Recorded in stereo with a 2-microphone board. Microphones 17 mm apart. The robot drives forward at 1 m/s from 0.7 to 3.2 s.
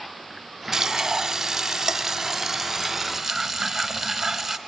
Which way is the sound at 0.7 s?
20° right (ahead or behind).